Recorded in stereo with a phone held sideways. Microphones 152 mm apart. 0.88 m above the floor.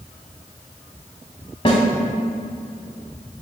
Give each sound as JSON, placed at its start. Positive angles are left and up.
{"t": 1.6, "sound": "a snare drum", "side_deg": 35, "distance_m": 1.1}